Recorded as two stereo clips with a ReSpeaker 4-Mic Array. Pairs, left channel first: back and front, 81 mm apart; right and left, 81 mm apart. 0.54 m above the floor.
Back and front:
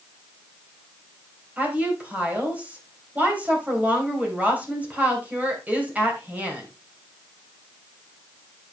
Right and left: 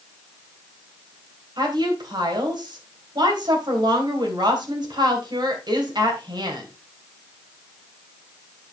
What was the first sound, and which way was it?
A woman speaking, 70° left.